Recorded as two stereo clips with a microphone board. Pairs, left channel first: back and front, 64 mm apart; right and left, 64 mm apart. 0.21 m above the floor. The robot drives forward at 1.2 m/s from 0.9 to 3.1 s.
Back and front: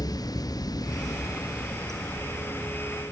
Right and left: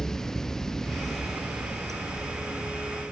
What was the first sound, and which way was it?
Running water, 175° right.